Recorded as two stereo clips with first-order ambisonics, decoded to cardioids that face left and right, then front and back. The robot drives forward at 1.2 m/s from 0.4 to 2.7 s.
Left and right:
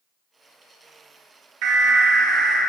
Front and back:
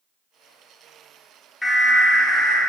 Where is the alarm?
80° right, 1.5 m; by 2.6 s 130° right, 1.8 m.